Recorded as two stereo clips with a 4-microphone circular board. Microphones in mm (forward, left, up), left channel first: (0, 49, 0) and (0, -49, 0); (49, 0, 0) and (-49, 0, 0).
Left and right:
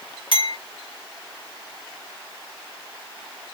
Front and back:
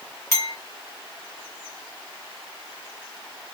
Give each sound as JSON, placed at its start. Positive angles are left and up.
{"t": 0.3, "sound": "a clink", "azimuth_deg": 60, "distance_m": 1.5}